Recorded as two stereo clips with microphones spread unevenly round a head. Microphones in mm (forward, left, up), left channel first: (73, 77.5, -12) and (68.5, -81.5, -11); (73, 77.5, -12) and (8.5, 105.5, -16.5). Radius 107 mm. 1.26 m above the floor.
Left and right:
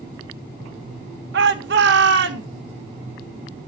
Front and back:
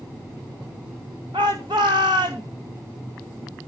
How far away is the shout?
About 1.3 m.